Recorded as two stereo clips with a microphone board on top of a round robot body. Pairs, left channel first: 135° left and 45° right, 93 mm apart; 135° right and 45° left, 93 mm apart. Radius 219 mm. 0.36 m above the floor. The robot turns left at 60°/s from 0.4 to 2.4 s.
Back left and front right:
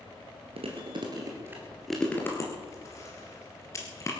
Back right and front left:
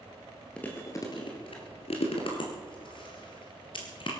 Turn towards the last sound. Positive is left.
turn(degrees=-165)